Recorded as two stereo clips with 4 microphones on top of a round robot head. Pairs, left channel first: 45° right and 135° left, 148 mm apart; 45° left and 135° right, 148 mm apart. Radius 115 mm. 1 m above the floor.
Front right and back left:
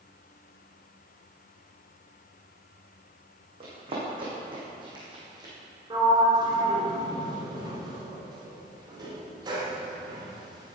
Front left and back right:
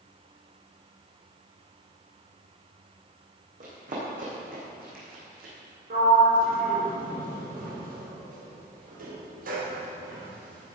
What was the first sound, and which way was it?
Running footsteps, 170° right.